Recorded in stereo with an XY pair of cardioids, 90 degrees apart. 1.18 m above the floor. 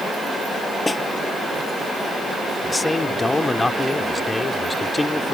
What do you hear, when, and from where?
0.9 s a snare drum: 25° left
2.6 s a man speaking: 25° left